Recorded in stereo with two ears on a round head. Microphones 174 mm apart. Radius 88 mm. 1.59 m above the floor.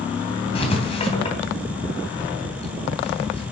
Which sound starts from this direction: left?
Writing, at 0.6 s.